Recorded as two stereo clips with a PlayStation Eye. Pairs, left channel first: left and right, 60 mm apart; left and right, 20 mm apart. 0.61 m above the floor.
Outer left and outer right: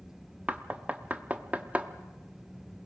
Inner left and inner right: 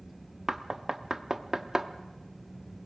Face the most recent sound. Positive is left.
turn(degrees=-25)  # may be behind; listen again after turning